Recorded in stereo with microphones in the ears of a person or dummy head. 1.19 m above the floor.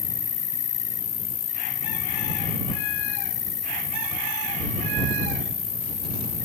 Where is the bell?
I don't hear a bell.